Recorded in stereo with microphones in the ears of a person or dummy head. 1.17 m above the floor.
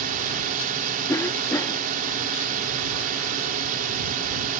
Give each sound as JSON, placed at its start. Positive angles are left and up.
{"t": 0.0, "sound": "a drone", "side_deg": -40}
{"t": 1.1, "sound": "a cough", "side_deg": 10}